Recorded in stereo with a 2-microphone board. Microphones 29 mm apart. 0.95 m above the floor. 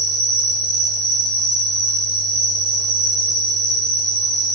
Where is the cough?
No cough in this recording.